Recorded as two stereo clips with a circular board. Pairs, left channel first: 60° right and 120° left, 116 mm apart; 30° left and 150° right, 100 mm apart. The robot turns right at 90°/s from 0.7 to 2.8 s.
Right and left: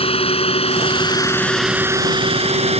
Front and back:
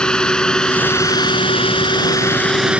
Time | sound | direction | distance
0.0 | a drone | 50° right | ?